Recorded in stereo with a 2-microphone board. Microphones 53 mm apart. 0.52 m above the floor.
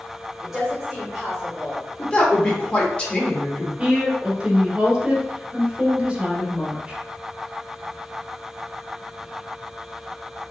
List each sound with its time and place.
0.4 s a woman speaking: 5° right (ahead or behind), 1.6 m
2.0 s a woman speaking: 20° left (ahead or behind), 1.1 m
3.8 s a woman speaking: 20° right (ahead or behind), 1.6 m